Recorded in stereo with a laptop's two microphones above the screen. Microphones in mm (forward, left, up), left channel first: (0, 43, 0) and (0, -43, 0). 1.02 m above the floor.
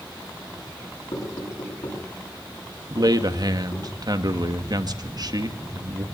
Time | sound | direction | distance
1.1 | knocking | 80° left | 10 m
2.9 | a man speaking | 50° right (ahead or behind) | 1.9 m